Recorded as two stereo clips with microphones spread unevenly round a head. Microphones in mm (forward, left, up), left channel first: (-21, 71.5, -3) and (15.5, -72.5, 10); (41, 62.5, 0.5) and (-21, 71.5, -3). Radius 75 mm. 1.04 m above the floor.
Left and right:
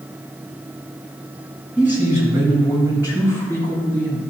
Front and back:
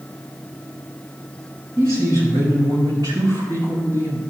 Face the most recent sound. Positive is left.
turn(degrees=-145)